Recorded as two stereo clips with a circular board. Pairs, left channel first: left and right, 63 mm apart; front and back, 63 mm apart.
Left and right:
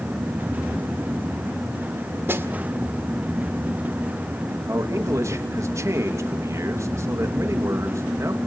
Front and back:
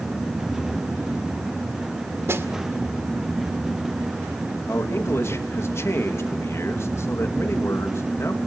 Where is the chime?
No chime in this recording.